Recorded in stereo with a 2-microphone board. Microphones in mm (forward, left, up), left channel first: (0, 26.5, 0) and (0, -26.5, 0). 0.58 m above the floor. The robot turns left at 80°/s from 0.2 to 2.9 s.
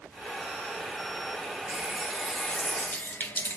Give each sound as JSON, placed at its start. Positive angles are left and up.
{"t": 1.7, "sound": "a running tap", "azimuth_deg": -140, "distance_m": 0.5}